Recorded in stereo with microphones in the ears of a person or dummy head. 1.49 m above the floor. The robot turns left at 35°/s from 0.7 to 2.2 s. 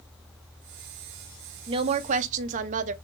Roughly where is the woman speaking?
Right.